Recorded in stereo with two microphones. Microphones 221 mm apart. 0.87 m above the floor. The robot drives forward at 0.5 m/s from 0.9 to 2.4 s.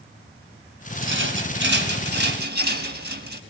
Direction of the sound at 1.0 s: 60° right (ahead or behind).